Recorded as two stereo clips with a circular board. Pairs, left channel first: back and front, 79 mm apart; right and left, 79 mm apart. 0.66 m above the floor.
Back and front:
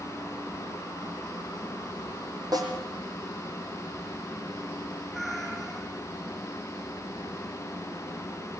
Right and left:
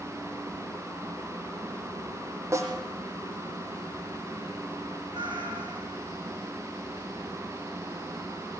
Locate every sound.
2.5 s a snare drum: 35° left, 5.5 m
5.1 s a cat meowing: 85° left, 6.5 m